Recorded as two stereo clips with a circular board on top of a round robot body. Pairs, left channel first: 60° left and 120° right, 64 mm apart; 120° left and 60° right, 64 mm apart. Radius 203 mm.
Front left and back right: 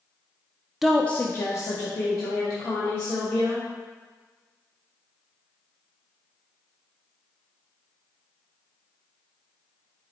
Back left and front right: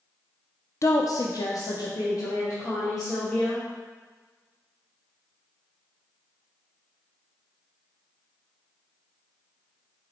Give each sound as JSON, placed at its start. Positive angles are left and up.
{"t": 0.8, "sound": "a woman speaking", "azimuth_deg": 155, "distance_m": 0.5}